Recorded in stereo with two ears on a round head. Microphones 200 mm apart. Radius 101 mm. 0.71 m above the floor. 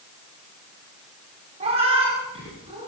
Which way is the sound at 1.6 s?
30° right (ahead or behind).